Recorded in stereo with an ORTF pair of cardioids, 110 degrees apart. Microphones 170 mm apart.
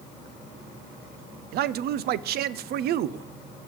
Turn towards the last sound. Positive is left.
turn(degrees=-70)